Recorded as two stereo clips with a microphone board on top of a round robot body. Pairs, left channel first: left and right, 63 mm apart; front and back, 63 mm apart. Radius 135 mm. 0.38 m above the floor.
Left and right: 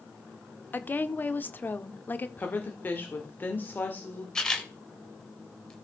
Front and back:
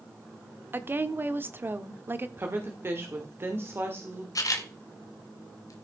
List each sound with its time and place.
0.7 s a woman speaking: 140° left, 1.1 m
2.4 s a woman speaking: 140° left, 1.9 m
4.3 s a camera shutter: 10° left, 1.9 m